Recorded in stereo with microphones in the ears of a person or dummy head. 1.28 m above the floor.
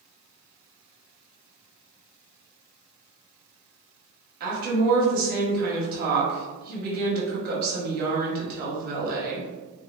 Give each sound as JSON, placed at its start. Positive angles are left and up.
{"t": 4.4, "sound": "a woman speaking", "side_deg": -50, "distance_m": 0.9}